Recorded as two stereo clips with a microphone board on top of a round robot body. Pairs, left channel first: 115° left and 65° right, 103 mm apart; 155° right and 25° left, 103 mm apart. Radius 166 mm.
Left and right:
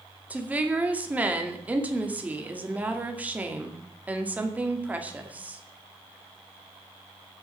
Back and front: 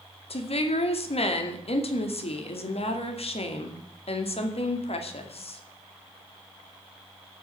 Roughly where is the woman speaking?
Behind right.